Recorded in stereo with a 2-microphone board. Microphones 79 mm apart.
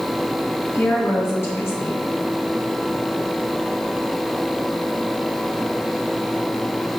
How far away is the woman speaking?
About 2 m.